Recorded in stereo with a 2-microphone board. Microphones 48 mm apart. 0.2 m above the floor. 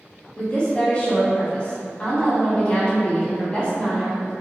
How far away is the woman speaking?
About 1.0 m.